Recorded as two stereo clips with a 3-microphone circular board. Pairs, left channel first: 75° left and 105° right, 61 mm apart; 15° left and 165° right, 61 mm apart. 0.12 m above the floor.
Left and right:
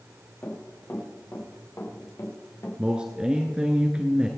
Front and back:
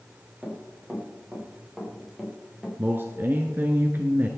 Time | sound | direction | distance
0.4 | running footsteps | 125° left | 6.5 m
2.8 | a man speaking | 165° right | 1.3 m